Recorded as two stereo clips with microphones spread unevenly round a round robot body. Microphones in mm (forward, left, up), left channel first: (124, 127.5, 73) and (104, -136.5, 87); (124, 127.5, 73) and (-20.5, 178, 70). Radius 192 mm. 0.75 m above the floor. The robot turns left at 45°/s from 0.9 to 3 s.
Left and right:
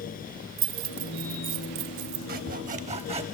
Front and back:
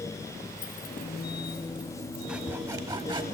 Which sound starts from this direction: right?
Keys jangling, at 0.6 s.